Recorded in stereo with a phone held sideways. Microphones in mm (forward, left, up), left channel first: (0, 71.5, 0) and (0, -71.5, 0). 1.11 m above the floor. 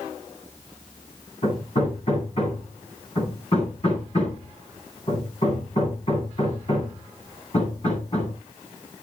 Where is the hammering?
50° left (ahead or behind), 10 m.